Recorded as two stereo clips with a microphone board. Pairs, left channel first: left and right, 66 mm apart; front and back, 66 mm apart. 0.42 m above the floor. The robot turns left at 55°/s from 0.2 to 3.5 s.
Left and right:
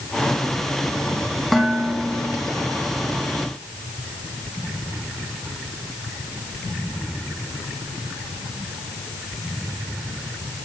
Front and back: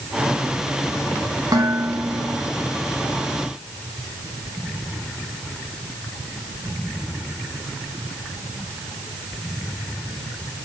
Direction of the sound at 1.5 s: 175° left.